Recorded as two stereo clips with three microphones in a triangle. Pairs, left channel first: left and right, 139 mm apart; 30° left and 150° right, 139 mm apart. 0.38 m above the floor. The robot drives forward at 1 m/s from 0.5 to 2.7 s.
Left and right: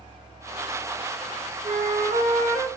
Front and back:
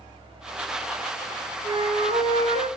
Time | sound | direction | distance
1.6 | a flute | 100° right | 2.5 m